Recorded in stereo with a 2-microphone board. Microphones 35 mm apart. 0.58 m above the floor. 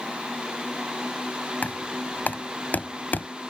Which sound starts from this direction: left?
Knocking, at 1.6 s.